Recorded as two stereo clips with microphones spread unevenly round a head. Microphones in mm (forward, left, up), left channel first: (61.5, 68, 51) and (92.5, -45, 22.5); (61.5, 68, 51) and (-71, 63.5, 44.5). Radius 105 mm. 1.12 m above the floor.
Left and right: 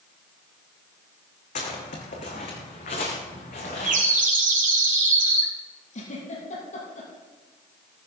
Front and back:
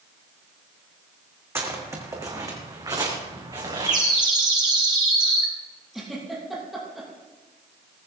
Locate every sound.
1.6 s footsteps: 110° left, 3.5 m; by 4.0 s 125° left, 4.5 m
3.9 s a bird: 110° right, 3 m
5.9 s a giggle: 95° left, 7 m